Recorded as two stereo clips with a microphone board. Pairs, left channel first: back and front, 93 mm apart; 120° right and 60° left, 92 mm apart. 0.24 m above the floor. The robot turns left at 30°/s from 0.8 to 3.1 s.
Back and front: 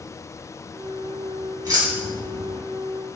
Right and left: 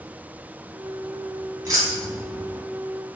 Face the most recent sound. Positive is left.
turn(degrees=-20)